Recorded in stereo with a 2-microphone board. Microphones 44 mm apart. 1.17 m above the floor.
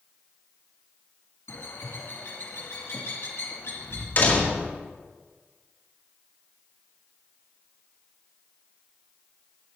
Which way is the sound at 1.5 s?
75° left (ahead or behind).